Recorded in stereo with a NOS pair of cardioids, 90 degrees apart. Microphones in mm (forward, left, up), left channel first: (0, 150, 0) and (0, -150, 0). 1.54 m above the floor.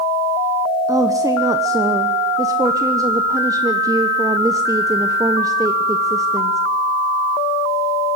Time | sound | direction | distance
0.9 | a woman speaking | 10° right | 1.1 m